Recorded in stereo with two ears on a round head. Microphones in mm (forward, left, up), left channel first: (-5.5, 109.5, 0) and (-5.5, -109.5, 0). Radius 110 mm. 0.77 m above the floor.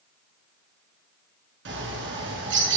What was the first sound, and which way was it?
A bird, 45° right (ahead or behind).